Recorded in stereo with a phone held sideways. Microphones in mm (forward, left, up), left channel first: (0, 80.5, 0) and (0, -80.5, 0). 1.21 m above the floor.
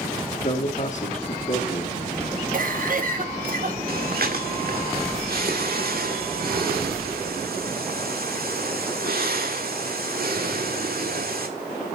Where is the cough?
60° right (ahead or behind), 1.4 m.